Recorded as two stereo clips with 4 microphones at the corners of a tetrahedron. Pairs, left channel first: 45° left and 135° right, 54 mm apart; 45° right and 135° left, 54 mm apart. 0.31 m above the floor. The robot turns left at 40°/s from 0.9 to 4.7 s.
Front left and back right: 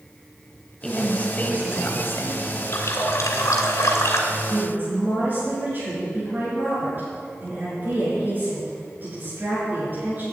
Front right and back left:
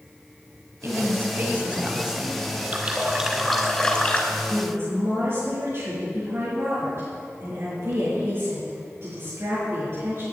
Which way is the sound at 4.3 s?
170° right.